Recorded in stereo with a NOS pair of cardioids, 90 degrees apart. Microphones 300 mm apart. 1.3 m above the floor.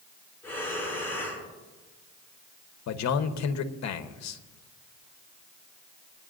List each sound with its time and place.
0.4 s breathing: 5° left, 6.5 m
2.9 s a man speaking: 65° left, 1.1 m